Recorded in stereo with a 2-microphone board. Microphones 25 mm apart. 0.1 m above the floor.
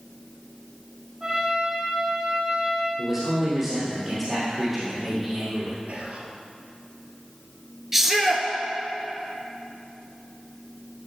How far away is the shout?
About 1.4 m.